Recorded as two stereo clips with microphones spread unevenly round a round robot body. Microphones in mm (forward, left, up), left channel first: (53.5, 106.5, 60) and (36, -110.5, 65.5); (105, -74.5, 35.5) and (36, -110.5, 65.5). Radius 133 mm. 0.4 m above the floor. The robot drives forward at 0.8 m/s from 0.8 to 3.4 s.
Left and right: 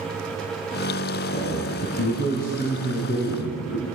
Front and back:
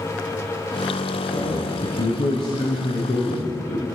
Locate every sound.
1.3 s a man speaking: 30° left, 6.5 m; by 3.9 s 40° left, 5.5 m